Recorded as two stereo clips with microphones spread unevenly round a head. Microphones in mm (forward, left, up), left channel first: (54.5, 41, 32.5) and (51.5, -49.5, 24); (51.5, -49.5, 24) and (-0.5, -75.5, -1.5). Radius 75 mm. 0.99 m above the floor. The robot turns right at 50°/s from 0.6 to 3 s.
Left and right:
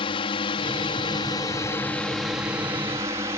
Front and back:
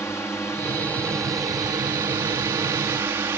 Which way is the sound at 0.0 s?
100° left.